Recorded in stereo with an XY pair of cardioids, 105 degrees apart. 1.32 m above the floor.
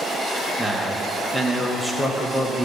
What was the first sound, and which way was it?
A man speaking, 10° left.